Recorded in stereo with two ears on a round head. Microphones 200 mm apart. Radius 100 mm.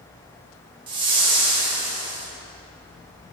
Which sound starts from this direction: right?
A whoosh, at 0.9 s.